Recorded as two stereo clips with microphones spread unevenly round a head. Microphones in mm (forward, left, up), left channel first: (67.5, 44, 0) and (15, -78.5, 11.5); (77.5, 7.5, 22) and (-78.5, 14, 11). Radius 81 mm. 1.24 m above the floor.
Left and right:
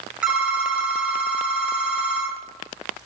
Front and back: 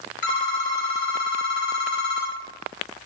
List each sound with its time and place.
0.2 s a phone ringing: 30° right, 1.1 m